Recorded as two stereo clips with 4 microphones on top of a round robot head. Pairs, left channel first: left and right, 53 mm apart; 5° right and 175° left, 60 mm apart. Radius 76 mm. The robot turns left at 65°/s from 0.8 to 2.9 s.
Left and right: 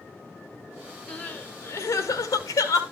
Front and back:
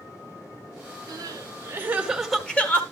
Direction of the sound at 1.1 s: 160° left.